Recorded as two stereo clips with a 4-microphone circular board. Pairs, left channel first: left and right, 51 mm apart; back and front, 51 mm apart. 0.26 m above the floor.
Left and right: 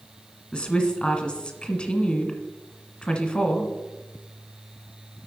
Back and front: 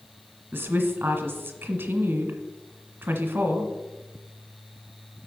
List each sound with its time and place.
0.5 s a woman speaking: 30° left, 1.3 m